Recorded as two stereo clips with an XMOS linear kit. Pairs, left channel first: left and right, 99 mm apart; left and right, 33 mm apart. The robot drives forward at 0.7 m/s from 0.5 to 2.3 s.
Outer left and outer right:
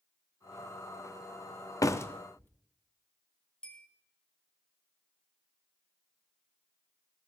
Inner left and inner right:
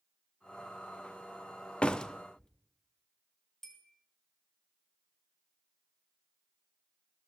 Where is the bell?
10° left (ahead or behind), 2.5 m.